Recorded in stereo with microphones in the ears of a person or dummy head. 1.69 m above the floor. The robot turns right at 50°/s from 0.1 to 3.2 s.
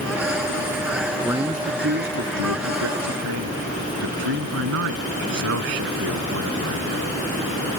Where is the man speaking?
175° left; by 7.2 s 75° right.